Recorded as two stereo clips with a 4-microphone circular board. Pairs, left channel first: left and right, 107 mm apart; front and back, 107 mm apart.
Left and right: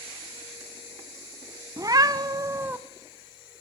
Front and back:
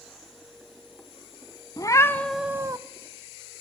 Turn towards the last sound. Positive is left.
turn(degrees=-150)